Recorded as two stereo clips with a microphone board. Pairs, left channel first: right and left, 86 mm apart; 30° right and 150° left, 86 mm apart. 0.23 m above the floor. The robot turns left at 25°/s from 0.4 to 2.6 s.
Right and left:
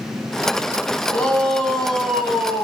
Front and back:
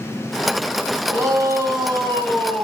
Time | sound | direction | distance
1.1 | a shout | 160° right | 3 m